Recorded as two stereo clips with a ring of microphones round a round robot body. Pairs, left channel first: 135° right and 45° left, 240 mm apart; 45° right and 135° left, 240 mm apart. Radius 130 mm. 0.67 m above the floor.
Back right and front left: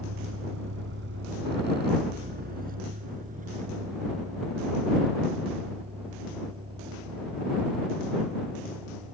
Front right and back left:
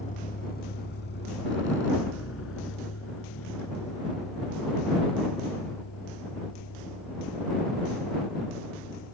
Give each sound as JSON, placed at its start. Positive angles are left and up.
{"t": 0.0, "sound": "a vehicle", "azimuth_deg": 15}